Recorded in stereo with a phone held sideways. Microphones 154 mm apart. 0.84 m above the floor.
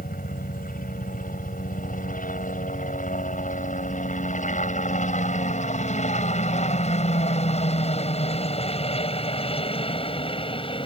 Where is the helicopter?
60° left (ahead or behind); by 10.9 s 35° left (ahead or behind).